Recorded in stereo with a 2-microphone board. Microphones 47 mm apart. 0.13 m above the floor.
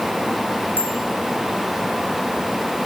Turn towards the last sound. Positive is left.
turn(degrees=50)  # may be behind; listen again after turning